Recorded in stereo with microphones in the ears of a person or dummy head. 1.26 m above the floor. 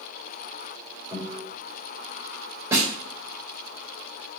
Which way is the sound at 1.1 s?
15° right (ahead or behind).